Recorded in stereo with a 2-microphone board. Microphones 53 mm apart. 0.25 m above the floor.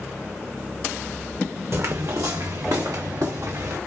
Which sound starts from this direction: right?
Footsteps, at 1.7 s.